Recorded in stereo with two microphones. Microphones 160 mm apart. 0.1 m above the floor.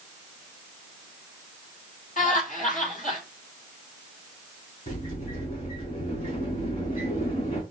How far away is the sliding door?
About 3.5 m.